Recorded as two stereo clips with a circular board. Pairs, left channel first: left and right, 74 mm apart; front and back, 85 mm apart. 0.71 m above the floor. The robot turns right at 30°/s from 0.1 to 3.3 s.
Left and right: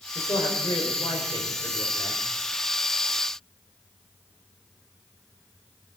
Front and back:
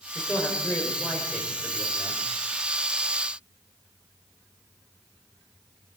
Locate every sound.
0.1 s a man speaking: 65° left, 3.5 m; by 2.2 s 125° left, 3.5 m